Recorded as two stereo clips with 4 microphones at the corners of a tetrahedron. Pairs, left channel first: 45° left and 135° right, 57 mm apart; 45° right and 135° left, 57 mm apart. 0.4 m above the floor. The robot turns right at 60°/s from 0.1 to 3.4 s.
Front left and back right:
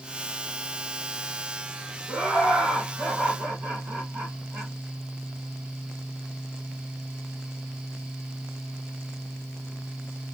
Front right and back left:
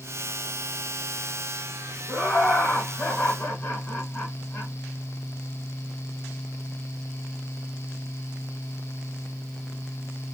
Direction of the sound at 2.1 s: 175° left.